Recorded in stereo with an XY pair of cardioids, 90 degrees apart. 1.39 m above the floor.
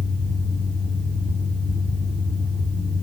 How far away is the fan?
About 2 m.